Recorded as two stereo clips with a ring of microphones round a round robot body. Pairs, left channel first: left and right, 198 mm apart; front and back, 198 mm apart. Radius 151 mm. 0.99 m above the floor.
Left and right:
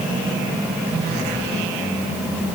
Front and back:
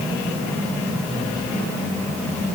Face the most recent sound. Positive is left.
No sound to turn to.